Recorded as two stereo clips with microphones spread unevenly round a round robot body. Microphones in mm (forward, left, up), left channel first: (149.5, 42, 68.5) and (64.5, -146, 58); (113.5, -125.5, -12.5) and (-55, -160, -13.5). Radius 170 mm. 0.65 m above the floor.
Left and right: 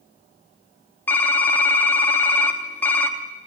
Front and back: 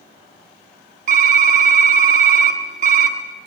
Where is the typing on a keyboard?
150° left, 1.1 m.